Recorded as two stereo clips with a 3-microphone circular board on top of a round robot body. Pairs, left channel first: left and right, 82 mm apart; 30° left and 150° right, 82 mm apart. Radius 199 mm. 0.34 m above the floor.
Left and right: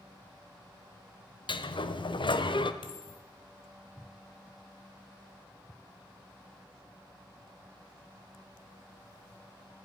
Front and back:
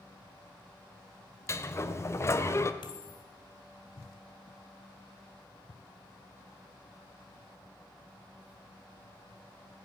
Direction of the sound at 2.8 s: 60° left.